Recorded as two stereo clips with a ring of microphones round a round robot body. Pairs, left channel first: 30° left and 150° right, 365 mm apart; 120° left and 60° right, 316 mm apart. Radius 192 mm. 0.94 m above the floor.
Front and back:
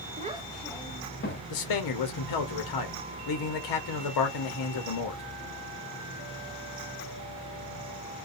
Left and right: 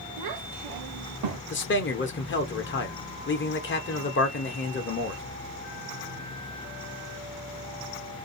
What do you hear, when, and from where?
0.2 s a child speaking: 80° right, 0.6 m; by 1.4 s 30° right, 0.9 m
1.5 s a man speaking: 65° left, 0.9 m